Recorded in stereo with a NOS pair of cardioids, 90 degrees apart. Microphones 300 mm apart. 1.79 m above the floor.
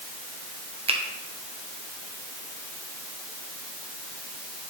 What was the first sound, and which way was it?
A finger snap, 20° right.